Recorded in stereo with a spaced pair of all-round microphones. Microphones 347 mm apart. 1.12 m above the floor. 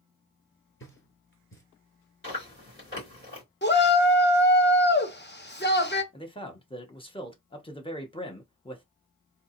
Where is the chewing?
35° left (ahead or behind), 3 m.